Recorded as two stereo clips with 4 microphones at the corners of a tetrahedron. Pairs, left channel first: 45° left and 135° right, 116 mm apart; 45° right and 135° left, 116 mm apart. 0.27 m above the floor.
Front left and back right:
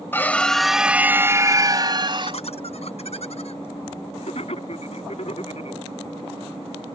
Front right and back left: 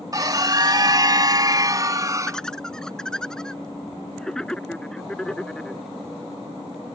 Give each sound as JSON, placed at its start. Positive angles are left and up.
{"t": 0.1, "sound": "a scream", "azimuth_deg": 105}
{"t": 2.3, "sound": "laughter", "azimuth_deg": 40}